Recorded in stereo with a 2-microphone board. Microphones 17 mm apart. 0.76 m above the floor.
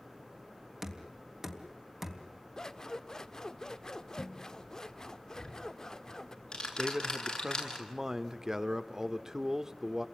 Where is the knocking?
20° right (ahead or behind), 3.5 m.